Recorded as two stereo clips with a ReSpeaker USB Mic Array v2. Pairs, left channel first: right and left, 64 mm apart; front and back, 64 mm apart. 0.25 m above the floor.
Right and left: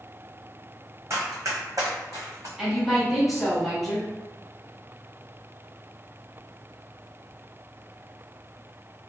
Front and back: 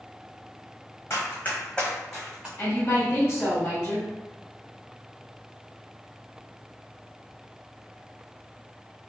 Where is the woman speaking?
10° left, 1.9 m.